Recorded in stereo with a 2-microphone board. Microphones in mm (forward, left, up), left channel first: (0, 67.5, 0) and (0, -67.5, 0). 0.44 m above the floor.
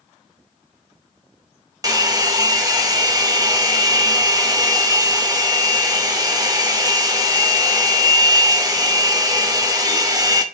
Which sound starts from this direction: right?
A hair dryer, at 1.8 s.